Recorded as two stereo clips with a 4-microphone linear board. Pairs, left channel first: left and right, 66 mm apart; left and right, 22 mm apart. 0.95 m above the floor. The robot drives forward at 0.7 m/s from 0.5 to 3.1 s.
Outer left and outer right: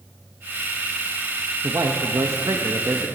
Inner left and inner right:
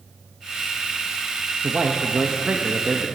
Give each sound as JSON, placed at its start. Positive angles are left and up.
{"t": 1.6, "sound": "a man speaking", "side_deg": -60, "distance_m": 0.9}